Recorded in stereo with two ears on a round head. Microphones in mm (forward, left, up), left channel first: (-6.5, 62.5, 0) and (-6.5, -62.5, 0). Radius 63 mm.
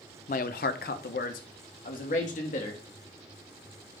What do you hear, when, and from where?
0.3 s a man speaking: 55° left (ahead or behind), 0.7 m; by 2.8 s 60° left (ahead or behind), 2.5 m